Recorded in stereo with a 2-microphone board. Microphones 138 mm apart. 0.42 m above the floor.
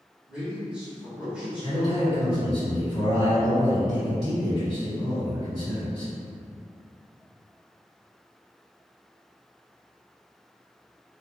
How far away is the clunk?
No clunk in this recording.